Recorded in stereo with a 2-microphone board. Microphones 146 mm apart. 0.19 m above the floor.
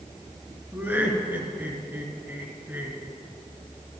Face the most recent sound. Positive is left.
turn(degrees=-15)  # may be behind; listen again after turning